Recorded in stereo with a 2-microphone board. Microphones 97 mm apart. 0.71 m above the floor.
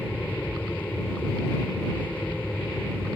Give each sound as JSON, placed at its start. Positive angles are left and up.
{"t": 0.0, "sound": "an aircraft", "side_deg": 20}